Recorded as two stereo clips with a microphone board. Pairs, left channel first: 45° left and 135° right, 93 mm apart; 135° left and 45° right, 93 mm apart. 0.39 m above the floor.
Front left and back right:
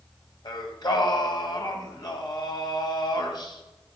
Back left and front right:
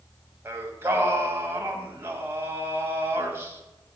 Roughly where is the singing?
Ahead.